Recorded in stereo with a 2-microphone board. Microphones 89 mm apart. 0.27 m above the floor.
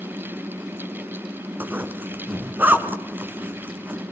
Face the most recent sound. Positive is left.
turn(degrees=-20)  # may be behind; listen again after turning